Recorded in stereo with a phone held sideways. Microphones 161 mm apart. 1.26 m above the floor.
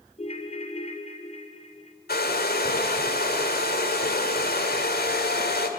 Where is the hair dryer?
75° left (ahead or behind), 2.5 m.